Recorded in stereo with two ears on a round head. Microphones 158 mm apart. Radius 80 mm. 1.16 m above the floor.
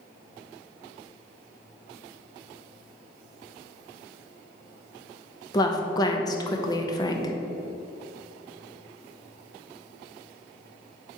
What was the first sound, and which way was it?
A woman speaking, 20° left (ahead or behind).